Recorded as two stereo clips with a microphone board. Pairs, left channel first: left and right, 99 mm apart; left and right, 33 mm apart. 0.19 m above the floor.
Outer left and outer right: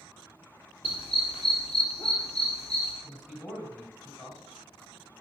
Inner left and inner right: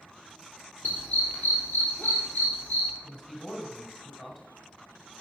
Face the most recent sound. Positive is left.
turn(degrees=15)  # may be behind; listen again after turning